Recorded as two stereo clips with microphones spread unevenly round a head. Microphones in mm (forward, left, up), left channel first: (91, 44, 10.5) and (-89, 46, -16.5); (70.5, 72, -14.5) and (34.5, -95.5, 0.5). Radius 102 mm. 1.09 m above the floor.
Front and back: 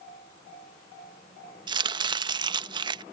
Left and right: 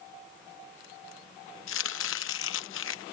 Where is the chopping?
110° left.